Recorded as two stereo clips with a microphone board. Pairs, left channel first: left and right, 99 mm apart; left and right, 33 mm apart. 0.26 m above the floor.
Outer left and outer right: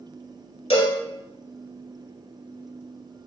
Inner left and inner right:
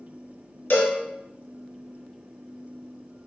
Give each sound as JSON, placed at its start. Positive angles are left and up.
{"t": 0.7, "sound": "a cowbell", "side_deg": 75, "distance_m": 0.7}